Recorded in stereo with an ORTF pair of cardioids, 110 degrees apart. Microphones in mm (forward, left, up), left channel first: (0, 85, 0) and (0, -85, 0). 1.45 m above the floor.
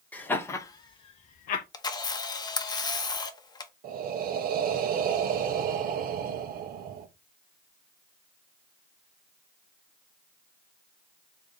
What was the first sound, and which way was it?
Laughter, 10° left.